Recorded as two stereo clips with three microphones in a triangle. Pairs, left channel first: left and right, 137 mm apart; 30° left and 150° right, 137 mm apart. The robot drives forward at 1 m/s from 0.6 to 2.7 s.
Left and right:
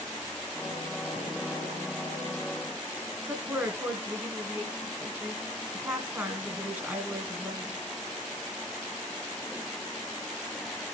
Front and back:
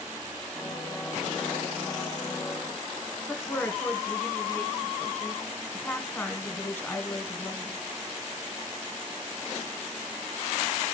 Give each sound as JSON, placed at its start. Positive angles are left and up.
{"t": 3.3, "sound": "a woman speaking", "azimuth_deg": -30, "distance_m": 1.4}